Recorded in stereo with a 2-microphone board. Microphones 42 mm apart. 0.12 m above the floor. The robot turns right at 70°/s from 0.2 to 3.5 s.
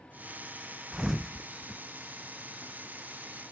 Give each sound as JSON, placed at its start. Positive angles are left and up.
{"t": 0.9, "sound": "a thud", "side_deg": -20, "distance_m": 0.7}